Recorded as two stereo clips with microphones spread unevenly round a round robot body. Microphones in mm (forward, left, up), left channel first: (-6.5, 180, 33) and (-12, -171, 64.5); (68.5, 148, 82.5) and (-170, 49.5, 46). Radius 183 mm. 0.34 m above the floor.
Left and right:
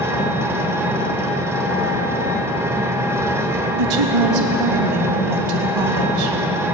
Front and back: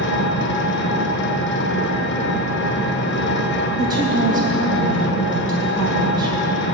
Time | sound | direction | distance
0.0 | an engine running | 5° right | 1.3 m
3.8 | a woman speaking | 90° right | 2.5 m